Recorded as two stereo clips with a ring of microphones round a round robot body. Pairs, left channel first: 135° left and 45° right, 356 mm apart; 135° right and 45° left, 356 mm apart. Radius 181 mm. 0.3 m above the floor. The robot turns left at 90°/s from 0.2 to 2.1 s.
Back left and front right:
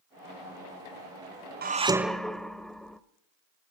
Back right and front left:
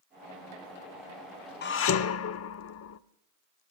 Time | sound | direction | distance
1.6 | dishes clattering | 90° right | 0.9 m